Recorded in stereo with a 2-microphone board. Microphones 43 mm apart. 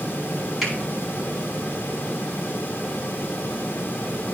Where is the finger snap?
Centre (ahead or behind), 4.5 m.